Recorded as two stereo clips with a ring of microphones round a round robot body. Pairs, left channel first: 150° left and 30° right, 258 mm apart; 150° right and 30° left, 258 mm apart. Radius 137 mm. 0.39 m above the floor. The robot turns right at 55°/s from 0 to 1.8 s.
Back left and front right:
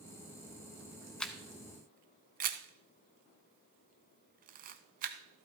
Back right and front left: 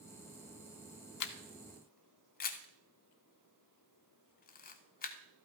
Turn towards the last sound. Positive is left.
turn(degrees=-90)